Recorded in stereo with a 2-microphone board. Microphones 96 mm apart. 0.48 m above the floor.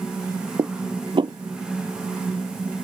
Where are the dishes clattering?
55° right (ahead or behind).